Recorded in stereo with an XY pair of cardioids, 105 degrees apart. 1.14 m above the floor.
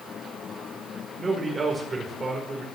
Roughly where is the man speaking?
Ahead right.